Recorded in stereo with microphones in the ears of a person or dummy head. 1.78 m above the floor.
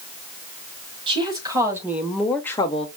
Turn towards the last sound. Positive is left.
turn(degrees=35)  # may be behind; listen again after turning